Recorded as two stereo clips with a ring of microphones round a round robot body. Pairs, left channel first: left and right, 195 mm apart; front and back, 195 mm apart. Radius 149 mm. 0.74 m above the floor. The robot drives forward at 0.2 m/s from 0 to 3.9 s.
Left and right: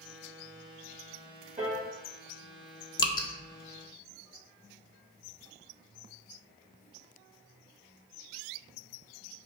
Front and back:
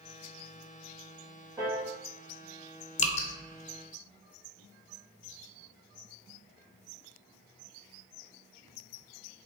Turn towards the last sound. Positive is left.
turn(degrees=60)